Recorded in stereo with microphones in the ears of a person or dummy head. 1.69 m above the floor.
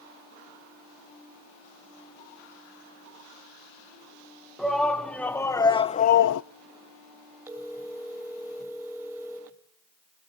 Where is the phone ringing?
15° right (ahead or behind), 3 m.